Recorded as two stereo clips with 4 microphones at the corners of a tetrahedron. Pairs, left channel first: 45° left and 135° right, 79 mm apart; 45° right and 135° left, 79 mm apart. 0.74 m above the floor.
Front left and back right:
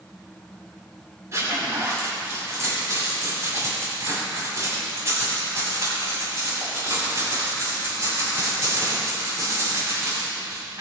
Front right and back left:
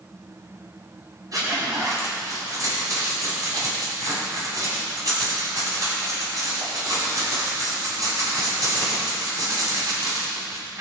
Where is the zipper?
175° left, 6 m.